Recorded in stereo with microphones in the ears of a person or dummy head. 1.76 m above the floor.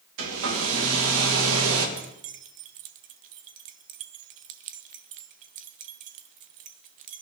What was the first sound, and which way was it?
A hair dryer, 80° right.